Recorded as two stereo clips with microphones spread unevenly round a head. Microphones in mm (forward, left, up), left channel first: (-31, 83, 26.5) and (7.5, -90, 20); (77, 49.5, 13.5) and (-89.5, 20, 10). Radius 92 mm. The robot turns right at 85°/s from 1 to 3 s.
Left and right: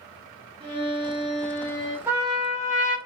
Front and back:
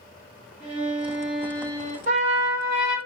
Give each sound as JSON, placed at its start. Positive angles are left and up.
{"t": 0.6, "sound": "a violin", "azimuth_deg": -100, "distance_m": 1.0}
{"t": 2.1, "sound": "a trumpet", "azimuth_deg": -155, "distance_m": 0.7}